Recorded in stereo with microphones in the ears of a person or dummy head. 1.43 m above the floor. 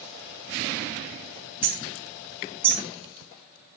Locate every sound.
1.6 s hammering: 10° right (ahead or behind), 1.5 m